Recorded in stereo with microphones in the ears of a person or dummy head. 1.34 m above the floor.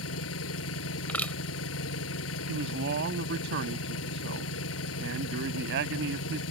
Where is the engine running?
85° left.